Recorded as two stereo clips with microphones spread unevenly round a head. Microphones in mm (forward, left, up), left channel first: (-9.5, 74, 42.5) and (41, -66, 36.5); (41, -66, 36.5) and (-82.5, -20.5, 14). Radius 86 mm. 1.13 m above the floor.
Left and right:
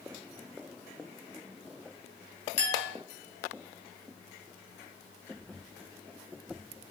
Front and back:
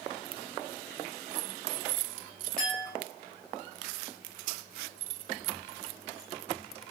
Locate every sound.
2.6 s a clink: 65° left, 1.0 m